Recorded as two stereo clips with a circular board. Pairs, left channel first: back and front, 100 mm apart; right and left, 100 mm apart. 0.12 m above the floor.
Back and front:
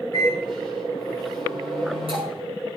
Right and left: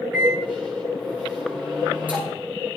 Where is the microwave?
15° left, 8.5 m.